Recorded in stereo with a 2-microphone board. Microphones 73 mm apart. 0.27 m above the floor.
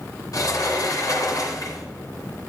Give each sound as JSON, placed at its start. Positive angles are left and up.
{"t": 0.3, "sound": "a sliding door", "side_deg": 60, "distance_m": 2.0}